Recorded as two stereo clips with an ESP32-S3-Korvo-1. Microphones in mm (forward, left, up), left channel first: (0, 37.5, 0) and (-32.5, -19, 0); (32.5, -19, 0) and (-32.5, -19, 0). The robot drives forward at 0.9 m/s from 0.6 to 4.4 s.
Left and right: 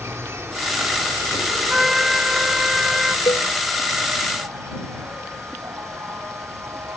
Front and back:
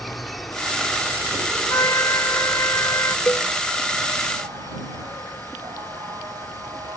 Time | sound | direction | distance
0.0 | an insect | 90° right | ?
1.7 | a trumpet | 35° right | ?
3.3 | a cowbell | 55° left | ?